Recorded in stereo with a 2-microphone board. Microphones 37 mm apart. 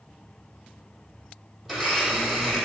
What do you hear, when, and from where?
1.6 s a blender: centre (ahead or behind), 2.5 m